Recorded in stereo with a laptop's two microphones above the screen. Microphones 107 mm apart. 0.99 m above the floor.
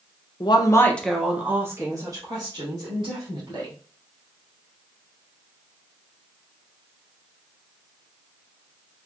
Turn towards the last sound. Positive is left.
turn(degrees=-45)  # may be behind; listen again after turning